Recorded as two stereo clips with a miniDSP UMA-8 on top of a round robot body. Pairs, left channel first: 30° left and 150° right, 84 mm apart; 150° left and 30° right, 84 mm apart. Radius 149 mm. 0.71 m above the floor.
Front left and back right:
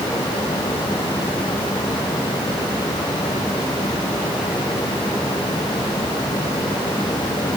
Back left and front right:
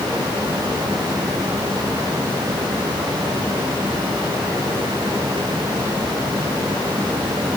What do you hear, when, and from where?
Only background noise.